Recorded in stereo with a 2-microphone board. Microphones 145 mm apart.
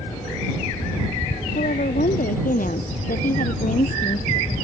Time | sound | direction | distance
1.6 | a woman speaking | 80° left | ?